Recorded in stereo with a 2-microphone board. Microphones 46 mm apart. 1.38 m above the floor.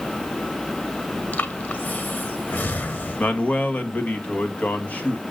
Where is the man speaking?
35° left (ahead or behind), 2.0 m.